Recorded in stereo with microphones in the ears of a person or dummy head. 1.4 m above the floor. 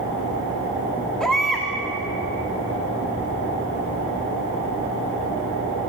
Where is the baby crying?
Centre (ahead or behind), 2.5 m.